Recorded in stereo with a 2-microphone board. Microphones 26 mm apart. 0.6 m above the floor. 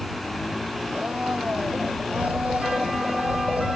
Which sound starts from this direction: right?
A blender, at 0.9 s.